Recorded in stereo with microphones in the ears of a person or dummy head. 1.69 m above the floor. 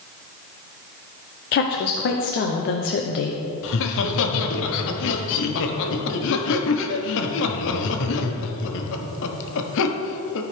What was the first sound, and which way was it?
A woman speaking, 45° left (ahead or behind).